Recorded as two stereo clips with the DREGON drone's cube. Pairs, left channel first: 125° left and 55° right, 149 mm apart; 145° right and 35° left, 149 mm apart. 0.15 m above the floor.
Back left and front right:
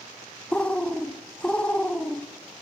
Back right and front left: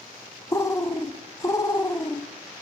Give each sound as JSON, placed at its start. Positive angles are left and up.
{"t": 0.5, "sound": "a bird", "azimuth_deg": -165, "distance_m": 0.7}